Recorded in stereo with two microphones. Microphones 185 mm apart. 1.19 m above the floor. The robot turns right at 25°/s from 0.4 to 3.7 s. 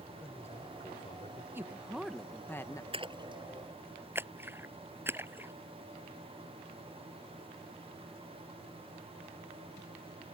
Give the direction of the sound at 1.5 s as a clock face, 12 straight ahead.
12 o'clock.